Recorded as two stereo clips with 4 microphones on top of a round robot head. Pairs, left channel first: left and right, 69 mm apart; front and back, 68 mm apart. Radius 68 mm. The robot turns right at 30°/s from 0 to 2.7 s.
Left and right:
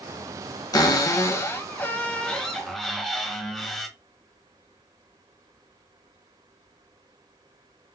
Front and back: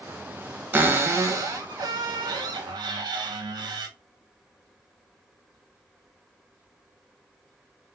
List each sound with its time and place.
0.7 s a cupboard door: 120° left, 0.6 m; by 3.9 s straight behind, 0.6 m